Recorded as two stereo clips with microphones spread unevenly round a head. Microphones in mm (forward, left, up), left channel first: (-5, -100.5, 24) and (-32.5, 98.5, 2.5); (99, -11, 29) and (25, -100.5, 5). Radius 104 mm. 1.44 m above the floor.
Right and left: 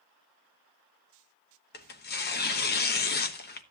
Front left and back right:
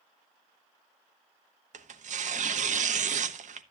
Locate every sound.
1.7 s tearing paper: 115° right, 1.1 m